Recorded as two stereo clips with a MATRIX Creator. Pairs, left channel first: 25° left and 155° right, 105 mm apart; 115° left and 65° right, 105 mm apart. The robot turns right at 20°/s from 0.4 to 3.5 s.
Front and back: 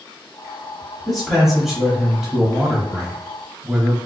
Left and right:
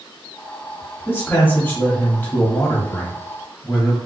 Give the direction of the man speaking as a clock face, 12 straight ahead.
8 o'clock.